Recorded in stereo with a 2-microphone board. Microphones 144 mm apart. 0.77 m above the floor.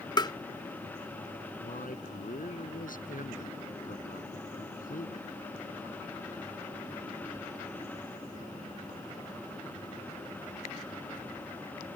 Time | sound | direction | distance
0.2 | tapping | 30° left (ahead or behind) | ?
1.6 | a man speaking | 70° left (ahead or behind) | ?